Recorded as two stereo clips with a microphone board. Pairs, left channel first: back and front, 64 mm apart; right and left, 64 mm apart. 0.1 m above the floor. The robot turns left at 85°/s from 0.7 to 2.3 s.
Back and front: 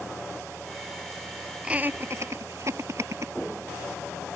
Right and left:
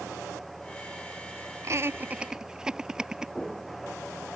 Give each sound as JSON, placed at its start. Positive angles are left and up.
{"t": 1.6, "sound": "laughter", "azimuth_deg": 70}